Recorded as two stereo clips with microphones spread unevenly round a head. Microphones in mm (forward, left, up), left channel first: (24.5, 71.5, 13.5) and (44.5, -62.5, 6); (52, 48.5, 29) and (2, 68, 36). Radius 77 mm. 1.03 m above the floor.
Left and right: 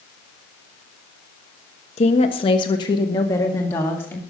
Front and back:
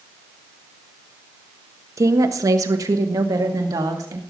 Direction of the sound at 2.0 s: 145° left.